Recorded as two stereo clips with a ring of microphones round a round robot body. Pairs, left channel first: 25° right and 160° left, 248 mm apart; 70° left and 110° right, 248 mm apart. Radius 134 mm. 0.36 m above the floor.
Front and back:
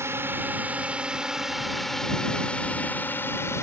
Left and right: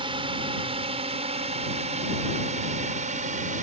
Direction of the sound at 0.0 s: 140° right.